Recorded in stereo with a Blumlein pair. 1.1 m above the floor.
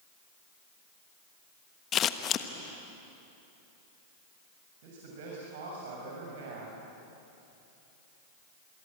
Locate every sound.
1.9 s scissors: 30° left, 1.2 m
4.8 s a man speaking: 50° right, 6.5 m